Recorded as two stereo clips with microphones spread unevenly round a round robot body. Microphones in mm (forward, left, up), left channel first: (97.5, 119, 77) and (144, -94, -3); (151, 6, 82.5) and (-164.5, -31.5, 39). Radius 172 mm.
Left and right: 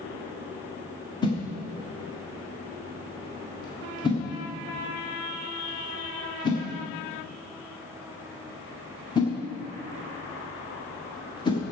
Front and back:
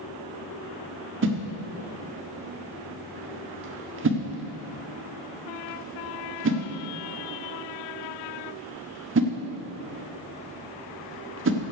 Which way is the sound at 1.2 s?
170° right.